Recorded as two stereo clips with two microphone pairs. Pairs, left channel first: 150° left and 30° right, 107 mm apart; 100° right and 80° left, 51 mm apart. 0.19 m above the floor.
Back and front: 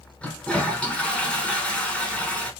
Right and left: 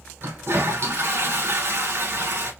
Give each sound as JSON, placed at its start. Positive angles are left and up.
{"t": 0.2, "sound": "a toilet flushing", "azimuth_deg": 70, "distance_m": 1.2}